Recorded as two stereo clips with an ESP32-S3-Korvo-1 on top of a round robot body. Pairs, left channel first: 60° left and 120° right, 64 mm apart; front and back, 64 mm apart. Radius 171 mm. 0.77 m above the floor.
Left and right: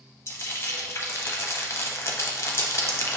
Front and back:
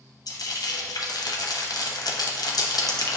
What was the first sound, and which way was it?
Frying, 10° left.